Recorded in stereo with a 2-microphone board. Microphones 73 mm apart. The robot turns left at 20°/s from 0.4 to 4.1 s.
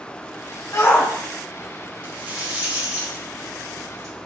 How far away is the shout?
About 1.2 m.